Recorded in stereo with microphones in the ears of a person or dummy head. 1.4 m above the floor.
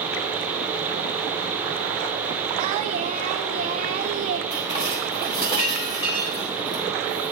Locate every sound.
2.6 s singing: 30° right (ahead or behind), 1.4 m
4.5 s dishes clattering: 35° left (ahead or behind), 3.5 m